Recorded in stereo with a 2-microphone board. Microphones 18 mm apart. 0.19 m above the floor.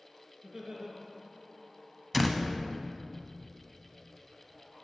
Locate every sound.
0.4 s laughter: 60° right (ahead or behind), 2.5 m
2.1 s a door slam: centre (ahead or behind), 0.7 m